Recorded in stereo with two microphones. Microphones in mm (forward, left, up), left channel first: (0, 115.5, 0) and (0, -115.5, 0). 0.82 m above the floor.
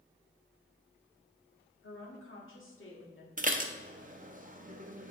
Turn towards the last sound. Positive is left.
turn(degrees=-35)  # may be behind; listen again after turning